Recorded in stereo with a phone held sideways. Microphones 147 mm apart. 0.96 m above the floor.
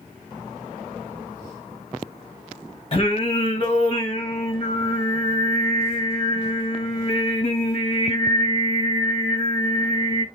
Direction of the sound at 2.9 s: 40° left (ahead or behind).